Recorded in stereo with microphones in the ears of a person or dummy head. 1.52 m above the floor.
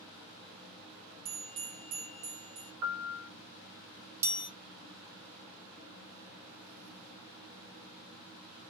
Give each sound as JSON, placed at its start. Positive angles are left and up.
{"t": 1.2, "sound": "a bell", "side_deg": -35, "distance_m": 0.7}
{"t": 2.8, "sound": "a piano", "side_deg": -75, "distance_m": 0.9}
{"t": 4.2, "sound": "a chime", "side_deg": -15, "distance_m": 0.9}